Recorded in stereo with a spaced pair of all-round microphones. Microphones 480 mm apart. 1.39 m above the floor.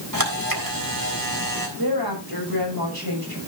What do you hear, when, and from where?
0.1 s a camera shutter: 45° right (ahead or behind), 3.5 m
1.8 s a woman speaking: 50° right (ahead or behind), 6.5 m